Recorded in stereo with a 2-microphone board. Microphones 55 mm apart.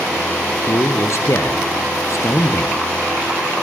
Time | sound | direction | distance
0.7 | a man speaking | 60° left (ahead or behind) | 2 m